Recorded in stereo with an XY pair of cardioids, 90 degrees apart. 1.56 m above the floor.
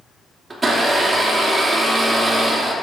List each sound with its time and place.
0.5 s a blender: 30° right, 2.5 m